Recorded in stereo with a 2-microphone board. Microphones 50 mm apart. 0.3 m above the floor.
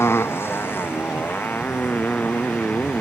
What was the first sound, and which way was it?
A motorcycle, 55° left (ahead or behind).